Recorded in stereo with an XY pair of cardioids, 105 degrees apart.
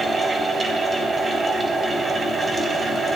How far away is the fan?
About 3.5 m.